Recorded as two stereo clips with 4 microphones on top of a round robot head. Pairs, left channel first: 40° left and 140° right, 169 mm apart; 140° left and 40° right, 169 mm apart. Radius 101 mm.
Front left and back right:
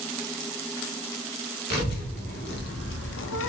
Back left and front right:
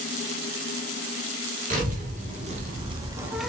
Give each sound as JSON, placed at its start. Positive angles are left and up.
{"t": 1.7, "sound": "a child speaking", "azimuth_deg": 5, "distance_m": 1.4}